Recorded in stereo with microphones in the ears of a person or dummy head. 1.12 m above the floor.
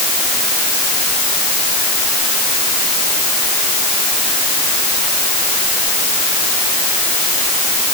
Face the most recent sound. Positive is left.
No sound to turn to.